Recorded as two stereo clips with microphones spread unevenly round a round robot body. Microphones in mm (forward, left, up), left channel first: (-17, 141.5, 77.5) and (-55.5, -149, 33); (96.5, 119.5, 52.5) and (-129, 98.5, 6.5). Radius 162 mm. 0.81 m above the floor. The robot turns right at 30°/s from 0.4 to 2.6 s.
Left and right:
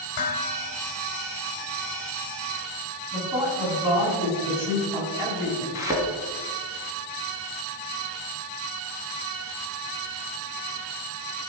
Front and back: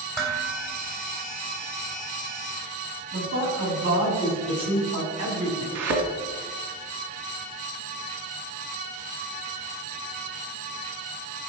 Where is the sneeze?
No sneeze in this recording.